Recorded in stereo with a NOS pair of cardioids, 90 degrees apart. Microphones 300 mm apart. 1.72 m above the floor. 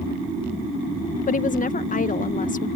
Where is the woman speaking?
25° left.